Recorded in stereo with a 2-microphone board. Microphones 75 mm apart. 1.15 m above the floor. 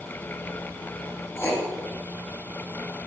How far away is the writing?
About 1.6 m.